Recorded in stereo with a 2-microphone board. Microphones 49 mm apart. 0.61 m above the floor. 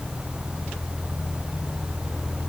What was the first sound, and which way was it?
Only background noise.